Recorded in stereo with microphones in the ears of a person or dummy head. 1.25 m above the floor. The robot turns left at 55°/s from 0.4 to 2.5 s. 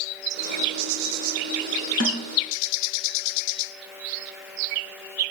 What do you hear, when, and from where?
2.0 s a snare drum: 70° right (ahead or behind), 5.5 m; by 2.3 s 55° right (ahead or behind), 5.5 m